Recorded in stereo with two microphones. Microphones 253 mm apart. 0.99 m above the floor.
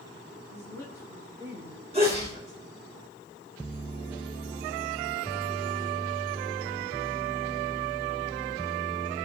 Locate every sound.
0.5 s a woman speaking: 10° left (ahead or behind), 8.5 m; by 2.6 s 25° left (ahead or behind), 6 m
1.9 s a sneeze: 25° right (ahead or behind), 4.5 m